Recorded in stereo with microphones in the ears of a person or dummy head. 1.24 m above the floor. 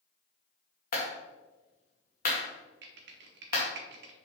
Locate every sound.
0.9 s a clap: 45° left (ahead or behind), 2.0 m
2.8 s typing on a keyboard: 50° right (ahead or behind), 1.0 m